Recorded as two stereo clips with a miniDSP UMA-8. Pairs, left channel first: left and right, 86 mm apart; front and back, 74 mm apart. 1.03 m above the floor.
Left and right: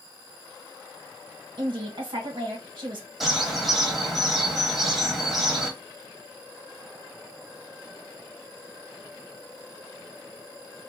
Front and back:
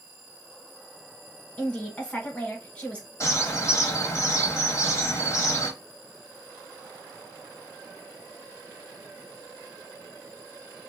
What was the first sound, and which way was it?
A woman speaking, 70° right.